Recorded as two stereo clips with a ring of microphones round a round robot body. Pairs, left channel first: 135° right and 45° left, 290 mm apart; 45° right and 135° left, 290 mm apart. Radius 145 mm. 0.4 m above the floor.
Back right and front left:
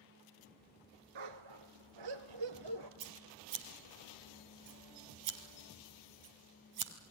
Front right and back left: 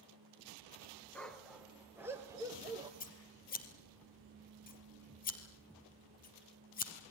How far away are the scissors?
About 3 m.